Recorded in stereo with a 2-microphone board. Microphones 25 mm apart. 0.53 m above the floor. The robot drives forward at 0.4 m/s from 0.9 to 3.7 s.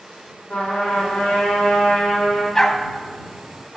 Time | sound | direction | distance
0.5 | a trumpet | 75° left (ahead or behind) | 5 m
2.5 | a dog barking | 15° left (ahead or behind) | 1.2 m